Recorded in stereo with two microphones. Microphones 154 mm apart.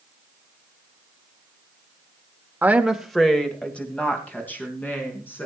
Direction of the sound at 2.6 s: 10° right (ahead or behind).